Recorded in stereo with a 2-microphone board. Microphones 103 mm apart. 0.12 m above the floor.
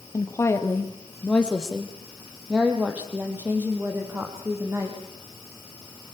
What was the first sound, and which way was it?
A woman speaking, 35° left (ahead or behind).